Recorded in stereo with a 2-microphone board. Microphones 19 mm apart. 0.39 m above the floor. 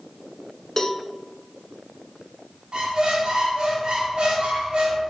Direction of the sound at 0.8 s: 25° left (ahead or behind).